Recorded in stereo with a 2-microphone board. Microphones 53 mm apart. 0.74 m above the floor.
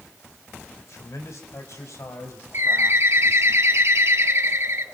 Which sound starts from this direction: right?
A bird, at 2.5 s.